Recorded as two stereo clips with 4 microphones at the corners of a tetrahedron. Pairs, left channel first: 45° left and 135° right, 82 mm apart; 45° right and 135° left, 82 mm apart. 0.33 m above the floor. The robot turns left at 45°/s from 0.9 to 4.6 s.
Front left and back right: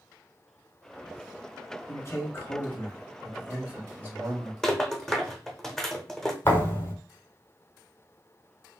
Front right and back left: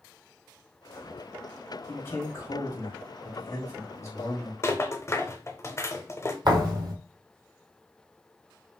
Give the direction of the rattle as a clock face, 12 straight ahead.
1 o'clock.